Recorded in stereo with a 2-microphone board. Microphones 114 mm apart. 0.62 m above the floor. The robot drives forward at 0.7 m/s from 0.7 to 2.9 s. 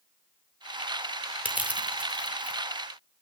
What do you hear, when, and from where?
1.4 s crushing: 15° right (ahead or behind), 1.3 m; by 2.6 s 10° right (ahead or behind), 2 m